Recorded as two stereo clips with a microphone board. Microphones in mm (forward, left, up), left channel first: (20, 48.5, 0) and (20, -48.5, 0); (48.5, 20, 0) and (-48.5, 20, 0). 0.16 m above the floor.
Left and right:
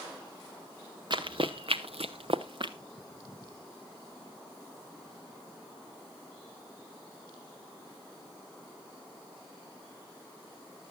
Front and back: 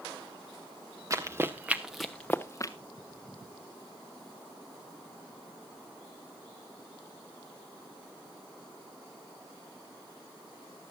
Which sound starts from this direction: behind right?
Running footsteps, at 1.1 s.